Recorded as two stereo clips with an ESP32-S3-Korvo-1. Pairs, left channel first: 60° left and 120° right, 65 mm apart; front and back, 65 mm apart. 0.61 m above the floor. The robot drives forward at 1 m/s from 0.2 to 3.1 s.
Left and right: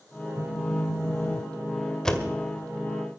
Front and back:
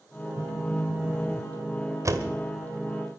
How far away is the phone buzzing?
About 2.5 m.